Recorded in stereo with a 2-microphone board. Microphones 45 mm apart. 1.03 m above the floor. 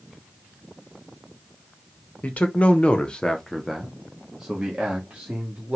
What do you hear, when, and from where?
2.2 s a man speaking: 30° left (ahead or behind), 1.0 m; by 5.8 s 20° right (ahead or behind), 1.8 m